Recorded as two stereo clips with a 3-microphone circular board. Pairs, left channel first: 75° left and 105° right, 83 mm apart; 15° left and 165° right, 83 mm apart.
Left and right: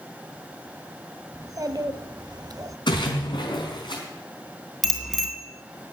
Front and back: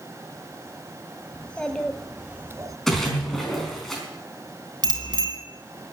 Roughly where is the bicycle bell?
Behind.